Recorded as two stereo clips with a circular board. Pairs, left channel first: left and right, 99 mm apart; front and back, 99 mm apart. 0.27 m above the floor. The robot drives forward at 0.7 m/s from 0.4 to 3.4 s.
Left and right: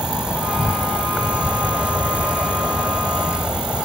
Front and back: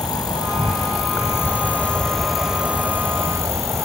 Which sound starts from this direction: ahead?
An insect, at 0.0 s.